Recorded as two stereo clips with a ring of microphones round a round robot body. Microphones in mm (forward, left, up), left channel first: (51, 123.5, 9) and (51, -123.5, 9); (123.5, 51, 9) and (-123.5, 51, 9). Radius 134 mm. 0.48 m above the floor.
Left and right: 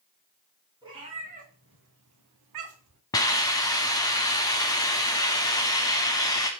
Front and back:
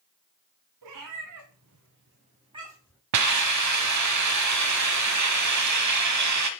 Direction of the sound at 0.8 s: 165° right.